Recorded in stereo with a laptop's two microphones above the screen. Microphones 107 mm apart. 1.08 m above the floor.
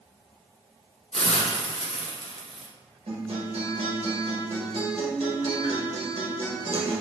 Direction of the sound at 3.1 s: 65° right (ahead or behind).